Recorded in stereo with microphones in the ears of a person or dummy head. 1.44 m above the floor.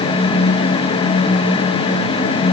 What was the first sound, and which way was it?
Only background noise.